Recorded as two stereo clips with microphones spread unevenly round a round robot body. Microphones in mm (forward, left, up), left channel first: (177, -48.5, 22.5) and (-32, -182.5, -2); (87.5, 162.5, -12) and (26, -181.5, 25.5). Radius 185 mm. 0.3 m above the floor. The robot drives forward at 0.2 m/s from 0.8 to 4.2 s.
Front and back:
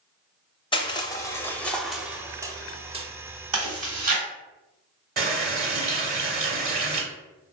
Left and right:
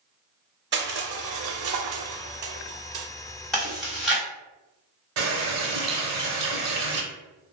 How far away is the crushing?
About 0.6 m.